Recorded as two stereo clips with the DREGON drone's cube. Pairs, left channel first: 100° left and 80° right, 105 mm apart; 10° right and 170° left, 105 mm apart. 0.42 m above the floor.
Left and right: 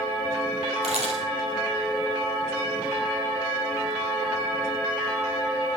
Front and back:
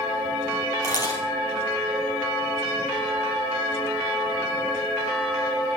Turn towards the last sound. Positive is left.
turn(degrees=-65)